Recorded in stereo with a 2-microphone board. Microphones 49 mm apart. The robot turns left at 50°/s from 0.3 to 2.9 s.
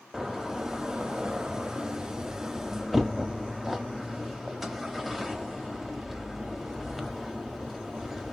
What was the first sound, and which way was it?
A door slam, 10° right (ahead or behind).